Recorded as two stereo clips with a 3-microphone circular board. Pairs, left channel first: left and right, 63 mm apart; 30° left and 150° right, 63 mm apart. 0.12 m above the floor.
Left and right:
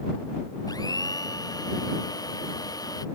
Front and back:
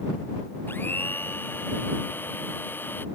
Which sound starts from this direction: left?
A blender, at 0.7 s.